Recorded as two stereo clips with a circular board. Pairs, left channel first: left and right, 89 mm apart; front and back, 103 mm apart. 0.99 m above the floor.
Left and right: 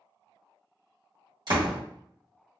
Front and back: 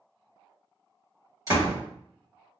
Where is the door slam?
125° right, 1.6 m.